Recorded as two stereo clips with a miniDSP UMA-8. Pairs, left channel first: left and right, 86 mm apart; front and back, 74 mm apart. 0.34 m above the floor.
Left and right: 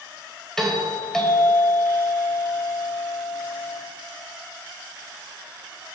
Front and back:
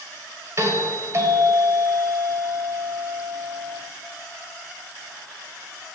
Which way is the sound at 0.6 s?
170° left.